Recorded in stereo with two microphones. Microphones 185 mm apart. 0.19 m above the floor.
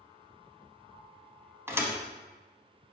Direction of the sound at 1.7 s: 15° right (ahead or behind).